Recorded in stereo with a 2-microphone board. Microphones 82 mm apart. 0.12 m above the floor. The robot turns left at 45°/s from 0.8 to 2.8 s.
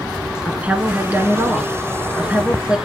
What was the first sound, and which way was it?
A woman speaking, 20° right (ahead or behind).